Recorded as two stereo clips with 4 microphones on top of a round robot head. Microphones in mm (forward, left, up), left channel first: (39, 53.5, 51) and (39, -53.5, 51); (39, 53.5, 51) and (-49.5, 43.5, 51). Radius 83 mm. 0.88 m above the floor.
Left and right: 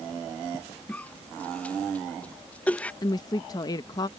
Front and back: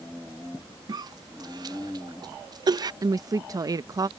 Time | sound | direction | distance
0.9 | a cough | 165° left | ?
3.0 | a woman speaking | 140° left | ?